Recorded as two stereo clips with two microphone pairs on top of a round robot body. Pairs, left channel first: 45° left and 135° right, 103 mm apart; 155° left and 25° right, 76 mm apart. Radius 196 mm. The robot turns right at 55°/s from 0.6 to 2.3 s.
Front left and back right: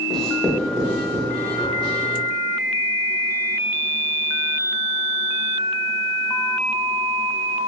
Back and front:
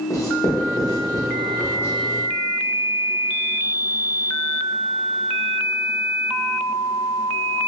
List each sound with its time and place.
0.1 s writing: 130° left, 0.9 m; by 1.9 s 155° right, 0.9 m